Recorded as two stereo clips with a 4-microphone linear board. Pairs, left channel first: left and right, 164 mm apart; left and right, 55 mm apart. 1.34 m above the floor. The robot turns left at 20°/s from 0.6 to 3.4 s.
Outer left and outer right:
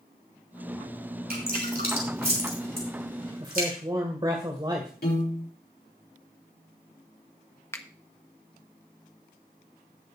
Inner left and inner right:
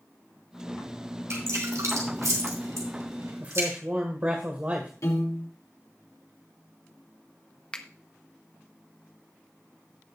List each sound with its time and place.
1.3 s dripping: 65° right (ahead or behind), 4 m
3.4 s a man speaking: 30° right (ahead or behind), 1.8 m
5.0 s a piano: 75° left (ahead or behind), 4.5 m
7.7 s a finger snap: 15° left (ahead or behind), 1.0 m